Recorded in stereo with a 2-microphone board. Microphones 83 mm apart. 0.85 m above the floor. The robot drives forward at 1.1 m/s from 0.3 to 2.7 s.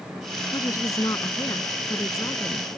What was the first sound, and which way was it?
A woman speaking, 45° left (ahead or behind).